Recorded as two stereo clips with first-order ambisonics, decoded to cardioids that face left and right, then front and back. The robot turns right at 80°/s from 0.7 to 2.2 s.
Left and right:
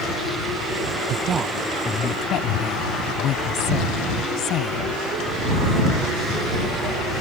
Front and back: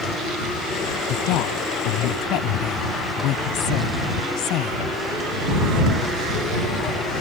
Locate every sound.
1.1 s a woman speaking: 45° right; by 4.9 s 40° left